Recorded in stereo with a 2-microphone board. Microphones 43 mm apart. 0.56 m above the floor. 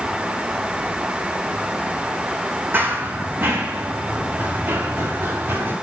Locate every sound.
2.7 s running footsteps: 55° right (ahead or behind), 2.0 m; by 5.7 s 65° right (ahead or behind), 5 m